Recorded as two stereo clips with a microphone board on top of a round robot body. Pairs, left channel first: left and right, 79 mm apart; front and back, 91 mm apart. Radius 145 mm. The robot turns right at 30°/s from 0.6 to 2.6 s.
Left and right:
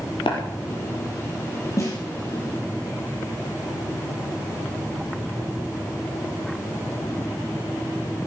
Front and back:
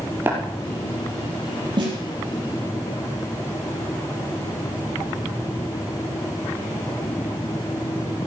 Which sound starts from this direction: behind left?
A snare drum, at 1.8 s.